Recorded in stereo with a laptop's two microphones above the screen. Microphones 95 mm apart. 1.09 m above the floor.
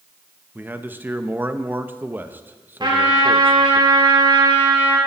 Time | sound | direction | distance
0.6 | a man speaking | 20° right (ahead or behind) | 1.0 m
2.8 | a trumpet | 50° right (ahead or behind) | 3.5 m